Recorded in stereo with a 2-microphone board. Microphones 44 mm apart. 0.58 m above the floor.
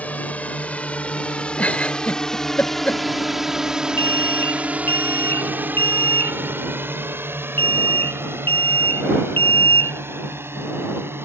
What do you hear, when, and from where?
0.0 s a drone: 35° left (ahead or behind); by 11.3 s 60° right (ahead or behind)
1.6 s a giggle: 30° left (ahead or behind)
4.0 s an alarm: 45° left (ahead or behind)